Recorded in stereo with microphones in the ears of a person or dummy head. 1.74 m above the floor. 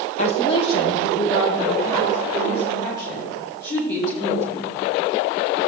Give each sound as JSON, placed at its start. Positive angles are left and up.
{"t": 0.2, "sound": "a woman speaking", "side_deg": 45, "distance_m": 1.0}